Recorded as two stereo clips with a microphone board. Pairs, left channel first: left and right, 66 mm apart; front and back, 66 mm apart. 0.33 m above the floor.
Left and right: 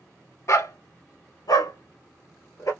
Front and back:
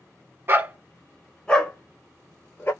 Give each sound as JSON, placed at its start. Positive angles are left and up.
{"t": 0.5, "sound": "a dog barking", "azimuth_deg": 130, "distance_m": 0.5}